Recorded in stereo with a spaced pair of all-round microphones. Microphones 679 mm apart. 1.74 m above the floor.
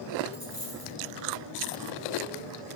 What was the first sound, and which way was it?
A dropped coin, 30° left (ahead or behind).